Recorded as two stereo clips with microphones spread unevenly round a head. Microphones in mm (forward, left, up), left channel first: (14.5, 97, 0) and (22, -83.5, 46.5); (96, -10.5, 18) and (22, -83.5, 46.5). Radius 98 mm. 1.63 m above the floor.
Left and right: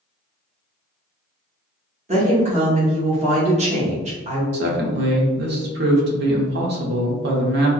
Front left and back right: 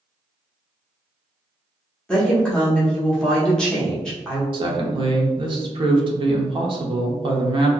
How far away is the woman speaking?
About 1.0 m.